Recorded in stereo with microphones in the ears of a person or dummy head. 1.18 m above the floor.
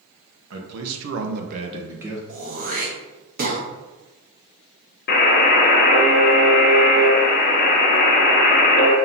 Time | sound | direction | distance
0.5 | a man speaking | 85° right | 1.0 m
2.3 | throat clearing | 50° right (ahead or behind) | 1.0 m
5.1 | a buzzer | 55° left (ahead or behind) | 0.8 m